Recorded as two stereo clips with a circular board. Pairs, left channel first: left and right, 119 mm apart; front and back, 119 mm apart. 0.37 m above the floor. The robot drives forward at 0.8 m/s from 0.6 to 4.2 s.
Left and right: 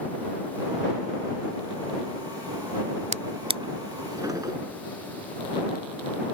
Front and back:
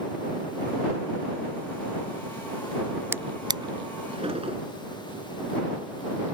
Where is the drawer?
110° right; by 4.6 s 145° right.